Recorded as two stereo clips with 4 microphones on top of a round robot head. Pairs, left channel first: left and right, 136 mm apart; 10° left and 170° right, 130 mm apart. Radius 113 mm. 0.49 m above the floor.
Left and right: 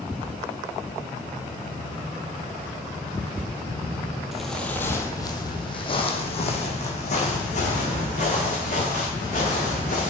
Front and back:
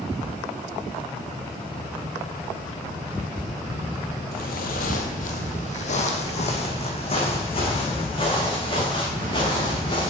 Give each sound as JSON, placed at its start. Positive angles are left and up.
{"t": 4.3, "sound": "footsteps", "azimuth_deg": -5, "distance_m": 0.8}